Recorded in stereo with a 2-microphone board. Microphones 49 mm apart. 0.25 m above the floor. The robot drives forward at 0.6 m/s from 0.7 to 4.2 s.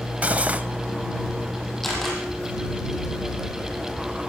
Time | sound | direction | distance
0.2 | cutlery clinking | 30° right (ahead or behind) | 0.6 m
1.8 | a camera shutter | 5° left (ahead or behind) | 5.5 m